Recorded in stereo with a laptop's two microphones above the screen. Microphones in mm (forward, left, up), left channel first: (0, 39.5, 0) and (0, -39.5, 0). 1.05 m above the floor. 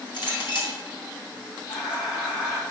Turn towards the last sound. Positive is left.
turn(degrees=50)  # may be behind; listen again after turning